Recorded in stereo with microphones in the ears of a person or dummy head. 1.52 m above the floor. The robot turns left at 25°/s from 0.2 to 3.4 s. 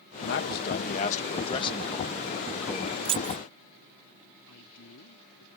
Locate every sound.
0.2 s a man speaking: 65° left; by 3.0 s 5° right
3.0 s keys jangling: 25° right (ahead or behind); by 3.4 s 20° right (ahead or behind)
4.4 s a man speaking: 75° left (ahead or behind)